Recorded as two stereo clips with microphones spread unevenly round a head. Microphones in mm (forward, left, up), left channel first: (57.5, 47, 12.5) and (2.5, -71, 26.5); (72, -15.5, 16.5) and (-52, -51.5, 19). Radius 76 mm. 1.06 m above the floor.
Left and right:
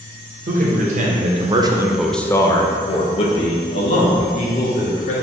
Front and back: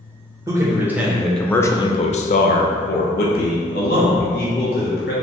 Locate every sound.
0.5 s a man speaking: 95° right, 1.0 m; by 5.1 s 40° left, 1.9 m